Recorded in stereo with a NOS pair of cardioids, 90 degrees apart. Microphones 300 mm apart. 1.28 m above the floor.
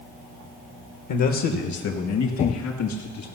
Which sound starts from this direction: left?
A man speaking, at 1.1 s.